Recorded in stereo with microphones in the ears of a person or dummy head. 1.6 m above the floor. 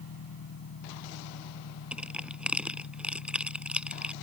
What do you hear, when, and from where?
0.0 s an engine running: 80° left
1.9 s crushing: 5° right (ahead or behind)